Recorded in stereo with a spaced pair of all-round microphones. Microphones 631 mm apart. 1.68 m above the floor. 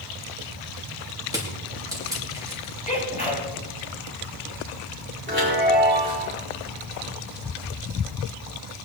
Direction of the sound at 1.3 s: 5° right (ahead or behind).